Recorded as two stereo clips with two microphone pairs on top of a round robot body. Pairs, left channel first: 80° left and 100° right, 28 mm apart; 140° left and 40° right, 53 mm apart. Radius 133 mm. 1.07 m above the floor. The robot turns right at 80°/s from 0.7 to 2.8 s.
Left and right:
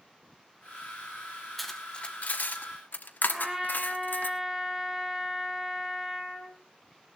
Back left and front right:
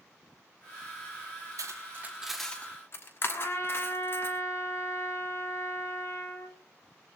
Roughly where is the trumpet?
Behind.